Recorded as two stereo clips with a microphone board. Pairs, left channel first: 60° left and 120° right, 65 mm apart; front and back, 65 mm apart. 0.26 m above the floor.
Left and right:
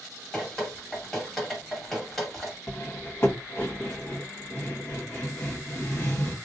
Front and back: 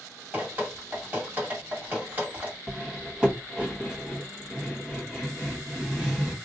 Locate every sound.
0.3 s dripping: 145° left, 1.7 m
2.7 s cutlery clinking: 110° left, 0.8 m